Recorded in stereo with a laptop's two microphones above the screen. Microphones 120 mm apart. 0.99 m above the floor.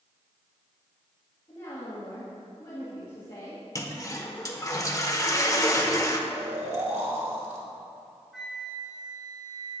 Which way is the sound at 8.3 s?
Centre (ahead or behind).